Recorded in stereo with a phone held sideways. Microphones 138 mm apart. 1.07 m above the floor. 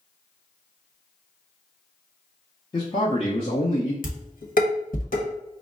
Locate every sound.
2.7 s a man speaking: 30° left (ahead or behind), 0.9 m; by 3.9 s 50° left (ahead or behind), 0.8 m
4.0 s dishes clattering: 90° left, 1.0 m